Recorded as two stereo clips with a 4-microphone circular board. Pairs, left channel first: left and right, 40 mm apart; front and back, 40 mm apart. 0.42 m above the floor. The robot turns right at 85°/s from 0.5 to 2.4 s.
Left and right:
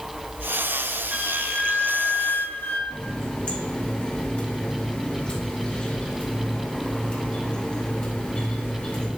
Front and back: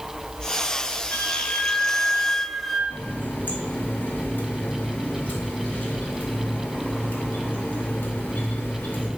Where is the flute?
25° right, 0.8 m; by 2.8 s 85° left, 0.8 m.